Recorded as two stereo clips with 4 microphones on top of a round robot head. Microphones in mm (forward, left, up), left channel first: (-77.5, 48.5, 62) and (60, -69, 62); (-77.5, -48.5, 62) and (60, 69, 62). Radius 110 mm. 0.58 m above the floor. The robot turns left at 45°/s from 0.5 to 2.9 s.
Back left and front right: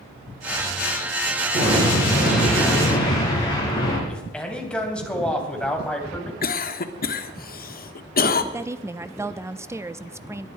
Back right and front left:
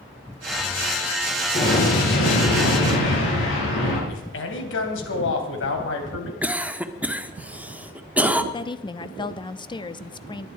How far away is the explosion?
About 6.5 m.